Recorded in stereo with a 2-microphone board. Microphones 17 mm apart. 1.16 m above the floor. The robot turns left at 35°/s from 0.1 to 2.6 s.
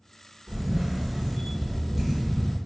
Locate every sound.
0.5 s a camera shutter: 90° right, 1.1 m; by 2.6 s 165° right, 1.1 m